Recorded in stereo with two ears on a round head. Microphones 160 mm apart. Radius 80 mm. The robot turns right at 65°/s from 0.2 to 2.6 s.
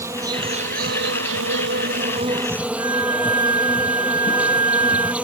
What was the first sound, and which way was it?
An insect, 165° right.